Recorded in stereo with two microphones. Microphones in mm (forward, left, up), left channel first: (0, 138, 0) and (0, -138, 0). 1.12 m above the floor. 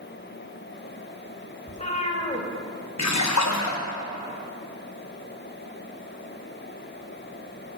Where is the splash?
75° left (ahead or behind), 0.9 m.